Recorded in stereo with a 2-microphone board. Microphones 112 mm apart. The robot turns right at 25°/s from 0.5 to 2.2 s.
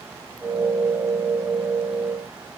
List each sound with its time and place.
Only background noise.